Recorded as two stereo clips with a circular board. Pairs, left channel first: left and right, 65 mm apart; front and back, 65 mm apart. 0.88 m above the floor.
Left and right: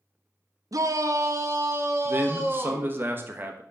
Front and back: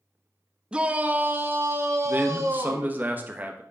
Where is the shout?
105° right, 0.8 m; by 3.0 s 145° right, 1.7 m.